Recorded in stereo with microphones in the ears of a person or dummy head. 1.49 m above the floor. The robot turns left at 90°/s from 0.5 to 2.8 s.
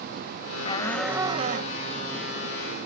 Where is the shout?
35° left; by 1.8 s 65° right.